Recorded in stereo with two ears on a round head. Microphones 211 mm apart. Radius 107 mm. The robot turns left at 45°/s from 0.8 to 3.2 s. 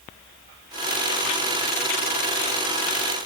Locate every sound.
Only background noise.